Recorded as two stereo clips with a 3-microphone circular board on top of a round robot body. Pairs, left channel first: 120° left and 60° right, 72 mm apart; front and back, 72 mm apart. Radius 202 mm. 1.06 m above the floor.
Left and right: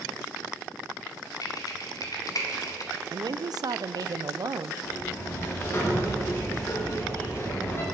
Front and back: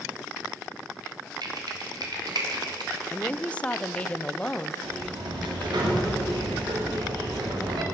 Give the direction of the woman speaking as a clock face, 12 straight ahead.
2 o'clock.